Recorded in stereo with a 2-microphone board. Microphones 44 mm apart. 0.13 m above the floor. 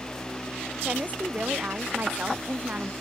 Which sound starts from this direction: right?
A woman speaking, at 0.8 s.